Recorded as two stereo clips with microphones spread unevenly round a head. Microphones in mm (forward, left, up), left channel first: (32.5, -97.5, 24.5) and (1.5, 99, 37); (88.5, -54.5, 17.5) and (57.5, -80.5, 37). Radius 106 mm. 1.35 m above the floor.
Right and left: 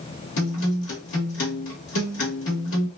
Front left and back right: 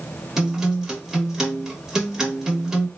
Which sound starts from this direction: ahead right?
A guitar, at 0.4 s.